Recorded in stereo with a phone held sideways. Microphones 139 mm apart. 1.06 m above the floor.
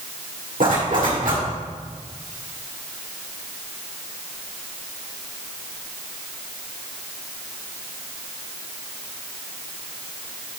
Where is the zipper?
80° right, 1.6 m.